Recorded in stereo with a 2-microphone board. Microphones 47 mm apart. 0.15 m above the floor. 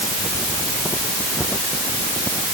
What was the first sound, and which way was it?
Only background noise.